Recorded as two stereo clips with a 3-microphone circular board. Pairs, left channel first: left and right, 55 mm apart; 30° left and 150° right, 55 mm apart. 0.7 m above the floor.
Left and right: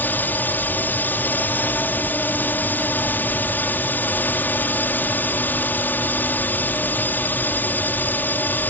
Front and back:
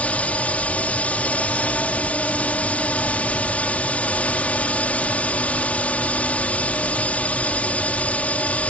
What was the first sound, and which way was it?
A drone, 75° left.